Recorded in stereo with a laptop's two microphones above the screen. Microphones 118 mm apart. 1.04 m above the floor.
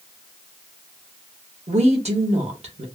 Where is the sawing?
No sawing in this recording.